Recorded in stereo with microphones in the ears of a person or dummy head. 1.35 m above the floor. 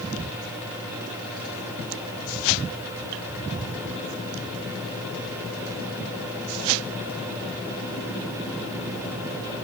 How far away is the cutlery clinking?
I don't hear cutlery clinking.